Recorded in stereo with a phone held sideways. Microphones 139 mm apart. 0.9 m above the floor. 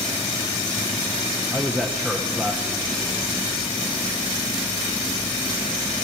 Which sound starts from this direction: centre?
A man speaking, at 1.5 s.